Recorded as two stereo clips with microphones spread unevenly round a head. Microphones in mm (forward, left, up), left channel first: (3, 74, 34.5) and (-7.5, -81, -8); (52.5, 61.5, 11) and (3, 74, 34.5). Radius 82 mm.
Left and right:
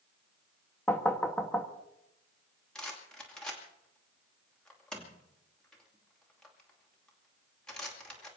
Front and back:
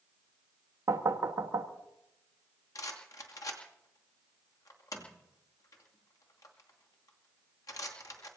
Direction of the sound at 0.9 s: 165° left.